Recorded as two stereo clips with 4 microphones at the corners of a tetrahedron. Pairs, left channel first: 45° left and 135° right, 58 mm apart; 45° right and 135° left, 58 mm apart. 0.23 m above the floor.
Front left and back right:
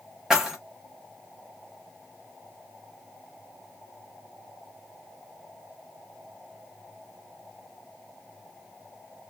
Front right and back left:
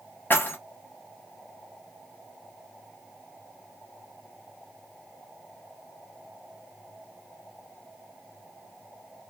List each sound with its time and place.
0.3 s keys jangling: 60° right, 1.0 m